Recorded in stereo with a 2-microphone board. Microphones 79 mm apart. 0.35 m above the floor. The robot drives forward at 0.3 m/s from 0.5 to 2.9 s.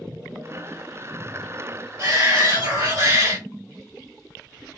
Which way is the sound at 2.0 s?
45° right (ahead or behind).